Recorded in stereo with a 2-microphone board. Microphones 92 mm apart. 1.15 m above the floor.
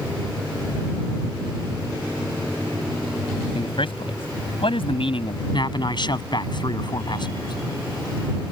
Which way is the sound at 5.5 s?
55° left (ahead or behind).